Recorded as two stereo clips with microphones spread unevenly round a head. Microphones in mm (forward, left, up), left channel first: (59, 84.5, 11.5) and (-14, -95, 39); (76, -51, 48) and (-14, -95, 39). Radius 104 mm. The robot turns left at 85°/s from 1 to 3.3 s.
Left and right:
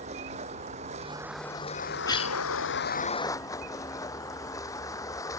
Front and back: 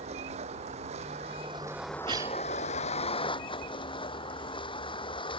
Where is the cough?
145° left; by 2.4 s 115° left.